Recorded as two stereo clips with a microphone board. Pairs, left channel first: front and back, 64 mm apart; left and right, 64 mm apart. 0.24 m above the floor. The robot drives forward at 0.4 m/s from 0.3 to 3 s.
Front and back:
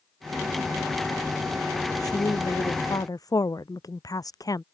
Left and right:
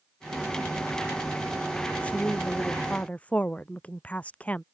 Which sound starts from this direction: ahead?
A woman speaking, at 2.0 s.